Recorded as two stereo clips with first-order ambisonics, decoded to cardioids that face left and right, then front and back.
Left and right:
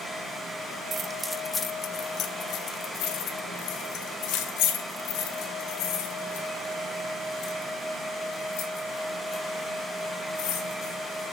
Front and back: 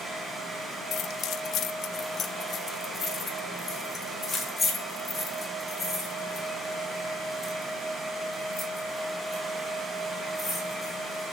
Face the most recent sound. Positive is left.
turn(degrees=80)